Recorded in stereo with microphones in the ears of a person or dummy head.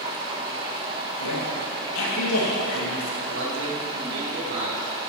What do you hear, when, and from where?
0.0 s running water: 30° right (ahead or behind), 1.6 m
1.2 s a woman speaking: 80° left, 3 m
3.3 s a man speaking: 65° right (ahead or behind), 2 m